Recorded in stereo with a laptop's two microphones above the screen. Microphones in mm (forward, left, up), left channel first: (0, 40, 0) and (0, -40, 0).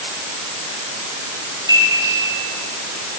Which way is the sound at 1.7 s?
60° right (ahead or behind).